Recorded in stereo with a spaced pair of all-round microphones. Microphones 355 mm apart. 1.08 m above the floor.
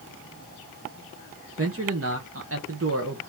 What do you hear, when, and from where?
1.6 s a man speaking: 40° right (ahead or behind), 0.9 m